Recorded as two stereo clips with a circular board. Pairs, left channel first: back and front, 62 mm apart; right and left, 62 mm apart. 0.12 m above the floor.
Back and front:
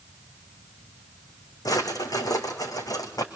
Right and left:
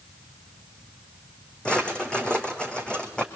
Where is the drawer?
165° right, 3 m.